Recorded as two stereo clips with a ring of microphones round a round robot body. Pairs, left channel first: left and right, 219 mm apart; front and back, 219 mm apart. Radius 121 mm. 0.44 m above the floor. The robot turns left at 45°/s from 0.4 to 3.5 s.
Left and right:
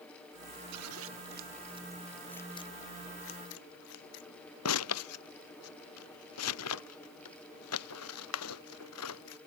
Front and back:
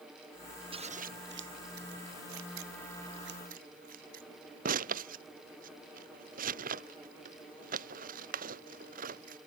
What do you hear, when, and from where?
0.7 s scissors: 115° right; by 9.4 s 120° left